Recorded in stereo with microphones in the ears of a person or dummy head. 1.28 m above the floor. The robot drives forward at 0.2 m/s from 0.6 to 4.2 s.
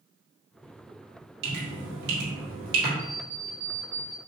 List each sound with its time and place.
1.4 s dripping: 65° right (ahead or behind), 1.9 m; by 2.9 s 70° right (ahead or behind), 1.8 m
3.0 s an alarm clock: 35° right (ahead or behind), 0.6 m; by 4.2 s 30° right (ahead or behind), 0.7 m